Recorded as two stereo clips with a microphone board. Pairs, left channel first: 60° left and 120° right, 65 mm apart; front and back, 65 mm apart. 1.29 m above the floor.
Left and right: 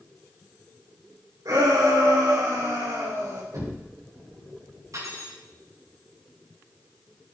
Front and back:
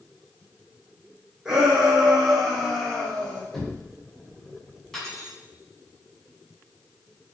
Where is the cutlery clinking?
85° right, 7.5 m.